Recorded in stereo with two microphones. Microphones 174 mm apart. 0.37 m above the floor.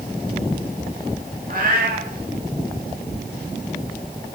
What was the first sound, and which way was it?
A cat meowing, 55° right (ahead or behind).